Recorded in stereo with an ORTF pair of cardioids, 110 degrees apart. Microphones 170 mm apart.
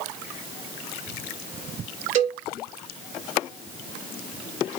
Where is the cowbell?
50° right, 2.5 m.